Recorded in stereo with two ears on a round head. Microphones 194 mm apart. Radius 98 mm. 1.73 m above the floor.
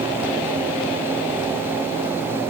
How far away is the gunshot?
I don't hear a gunshot.